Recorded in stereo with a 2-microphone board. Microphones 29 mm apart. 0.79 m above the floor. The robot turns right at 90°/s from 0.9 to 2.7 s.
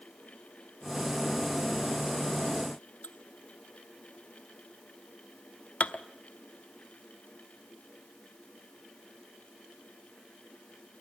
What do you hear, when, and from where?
3.0 s dishes clattering: 60° left (ahead or behind), 0.9 m